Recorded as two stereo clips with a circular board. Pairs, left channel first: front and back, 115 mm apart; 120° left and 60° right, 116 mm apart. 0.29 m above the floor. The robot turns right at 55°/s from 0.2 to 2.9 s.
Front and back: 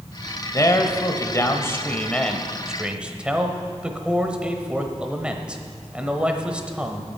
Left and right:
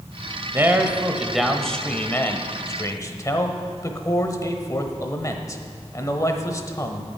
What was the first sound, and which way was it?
A man speaking, 20° right.